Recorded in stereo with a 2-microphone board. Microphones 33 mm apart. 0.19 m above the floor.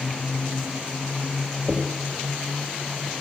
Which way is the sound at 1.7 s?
30° right (ahead or behind).